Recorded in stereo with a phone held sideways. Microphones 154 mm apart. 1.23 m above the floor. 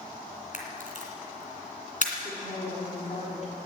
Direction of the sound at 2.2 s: 50° left (ahead or behind).